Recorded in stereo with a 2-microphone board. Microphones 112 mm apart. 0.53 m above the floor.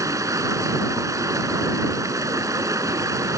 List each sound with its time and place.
0.0 s running water: 30° right (ahead or behind)